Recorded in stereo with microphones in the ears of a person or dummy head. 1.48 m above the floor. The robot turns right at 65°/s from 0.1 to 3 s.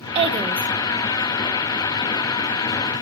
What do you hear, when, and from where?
0.1 s a woman speaking: 40° right, 0.8 m; by 0.7 s 5° right, 0.8 m